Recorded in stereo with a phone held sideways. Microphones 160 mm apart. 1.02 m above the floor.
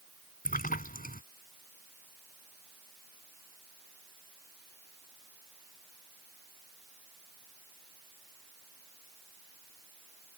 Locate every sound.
0.5 s a splash: 55° left (ahead or behind)